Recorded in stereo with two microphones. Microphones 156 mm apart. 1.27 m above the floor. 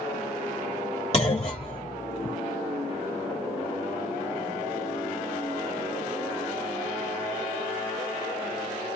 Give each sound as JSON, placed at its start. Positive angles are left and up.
{"t": 1.1, "sound": "a clunk", "side_deg": 40, "distance_m": 1.5}